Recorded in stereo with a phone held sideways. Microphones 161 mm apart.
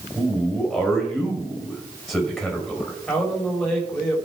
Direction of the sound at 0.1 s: Centre (ahead or behind).